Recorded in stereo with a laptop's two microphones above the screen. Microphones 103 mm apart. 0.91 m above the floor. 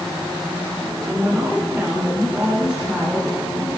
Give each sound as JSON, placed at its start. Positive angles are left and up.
{"t": 1.0, "sound": "a woman speaking", "side_deg": -15, "distance_m": 3.5}